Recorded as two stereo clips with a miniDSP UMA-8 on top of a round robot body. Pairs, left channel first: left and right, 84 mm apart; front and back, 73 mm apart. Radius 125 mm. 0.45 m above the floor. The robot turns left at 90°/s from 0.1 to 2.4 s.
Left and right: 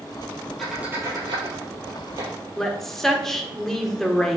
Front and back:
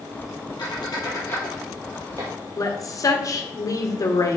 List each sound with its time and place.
0.6 s a squeak: 5° left, 3.5 m; by 2.3 s 145° right, 3.5 m
2.6 s a woman speaking: 5° left, 1.8 m